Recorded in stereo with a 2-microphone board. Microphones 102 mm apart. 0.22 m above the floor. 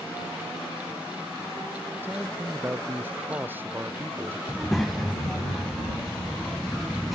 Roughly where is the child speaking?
Centre.